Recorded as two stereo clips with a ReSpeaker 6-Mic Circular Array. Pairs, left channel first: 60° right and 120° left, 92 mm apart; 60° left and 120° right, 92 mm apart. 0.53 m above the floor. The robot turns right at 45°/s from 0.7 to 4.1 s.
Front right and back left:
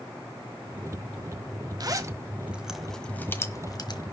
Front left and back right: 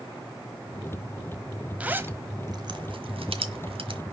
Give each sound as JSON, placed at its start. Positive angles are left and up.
{"t": 1.8, "sound": "a zipper", "azimuth_deg": 165, "distance_m": 1.2}